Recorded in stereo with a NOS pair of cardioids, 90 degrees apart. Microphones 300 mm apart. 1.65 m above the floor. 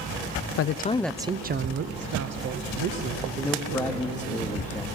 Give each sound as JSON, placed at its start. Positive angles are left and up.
{"t": 0.6, "sound": "a man speaking", "azimuth_deg": 50, "distance_m": 0.6}
{"t": 3.4, "sound": "a man speaking", "azimuth_deg": 5, "distance_m": 1.4}